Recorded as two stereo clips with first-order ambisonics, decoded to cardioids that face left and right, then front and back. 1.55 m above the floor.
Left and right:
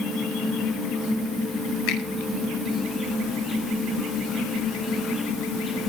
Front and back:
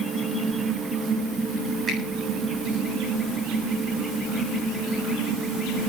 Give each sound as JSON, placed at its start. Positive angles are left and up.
{"t": 1.9, "sound": "a finger snap", "azimuth_deg": 110, "distance_m": 8.0}